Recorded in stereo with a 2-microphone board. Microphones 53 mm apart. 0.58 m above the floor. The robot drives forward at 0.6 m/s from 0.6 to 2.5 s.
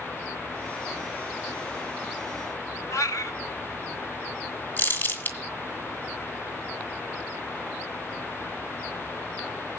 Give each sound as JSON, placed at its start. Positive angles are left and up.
{"t": 2.9, "sound": "a cat meowing", "side_deg": 85, "distance_m": 1.0}
{"t": 4.8, "sound": "crumpling", "side_deg": 35, "distance_m": 2.0}